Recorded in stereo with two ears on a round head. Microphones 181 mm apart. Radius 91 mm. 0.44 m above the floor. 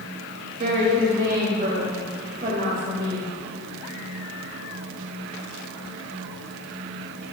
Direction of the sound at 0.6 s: 45° right (ahead or behind).